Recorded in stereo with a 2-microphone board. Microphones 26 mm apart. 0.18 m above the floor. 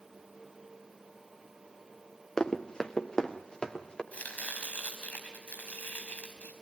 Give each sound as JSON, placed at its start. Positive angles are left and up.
{"t": 2.4, "sound": "running footsteps", "side_deg": 30, "distance_m": 1.9}
{"t": 4.1, "sound": "chopping", "side_deg": 80, "distance_m": 4.5}